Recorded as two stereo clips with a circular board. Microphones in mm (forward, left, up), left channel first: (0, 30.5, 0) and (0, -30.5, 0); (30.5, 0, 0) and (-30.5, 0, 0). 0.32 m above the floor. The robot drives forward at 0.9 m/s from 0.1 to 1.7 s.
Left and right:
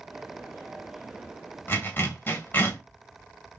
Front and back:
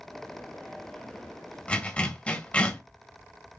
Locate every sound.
1.7 s a zipper: 55° left, 1.8 m; by 2.8 s 60° left, 1.8 m